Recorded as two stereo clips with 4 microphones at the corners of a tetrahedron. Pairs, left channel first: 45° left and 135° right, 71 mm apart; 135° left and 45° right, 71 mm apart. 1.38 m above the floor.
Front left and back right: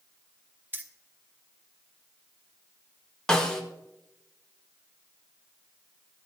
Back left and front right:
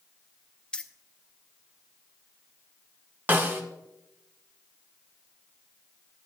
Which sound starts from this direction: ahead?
A snare drum, at 3.3 s.